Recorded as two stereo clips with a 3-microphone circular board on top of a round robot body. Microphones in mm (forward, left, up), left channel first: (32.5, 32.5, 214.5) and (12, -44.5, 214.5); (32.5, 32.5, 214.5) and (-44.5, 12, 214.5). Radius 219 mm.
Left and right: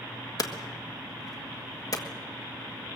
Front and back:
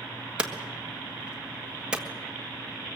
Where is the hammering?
115° left, 1.5 m.